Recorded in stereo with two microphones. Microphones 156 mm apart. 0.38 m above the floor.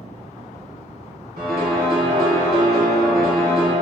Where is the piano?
85° right, 0.8 m.